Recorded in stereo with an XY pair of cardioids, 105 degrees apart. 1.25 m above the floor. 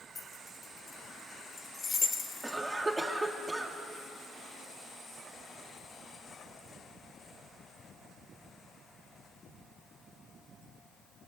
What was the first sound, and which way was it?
Keys jangling, 30° left.